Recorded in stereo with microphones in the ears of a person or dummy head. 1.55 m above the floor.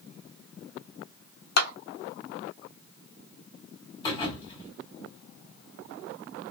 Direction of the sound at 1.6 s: 55° left (ahead or behind).